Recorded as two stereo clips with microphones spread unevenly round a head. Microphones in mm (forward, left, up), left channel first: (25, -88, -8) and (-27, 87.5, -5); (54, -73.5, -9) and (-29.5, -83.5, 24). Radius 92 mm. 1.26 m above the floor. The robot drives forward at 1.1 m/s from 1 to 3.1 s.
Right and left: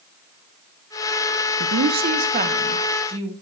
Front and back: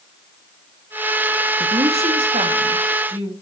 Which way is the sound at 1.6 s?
115° left.